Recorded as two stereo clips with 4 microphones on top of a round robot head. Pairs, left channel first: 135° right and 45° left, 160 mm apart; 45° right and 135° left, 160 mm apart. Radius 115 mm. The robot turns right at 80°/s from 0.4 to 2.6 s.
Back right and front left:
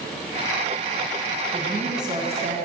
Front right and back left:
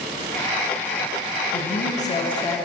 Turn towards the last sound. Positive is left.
turn(degrees=30)